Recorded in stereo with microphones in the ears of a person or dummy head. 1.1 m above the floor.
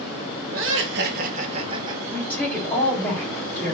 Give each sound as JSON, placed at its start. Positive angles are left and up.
{"t": 0.5, "sound": "laughter", "side_deg": -70, "distance_m": 0.9}
{"t": 2.1, "sound": "a woman speaking", "side_deg": 10, "distance_m": 2.0}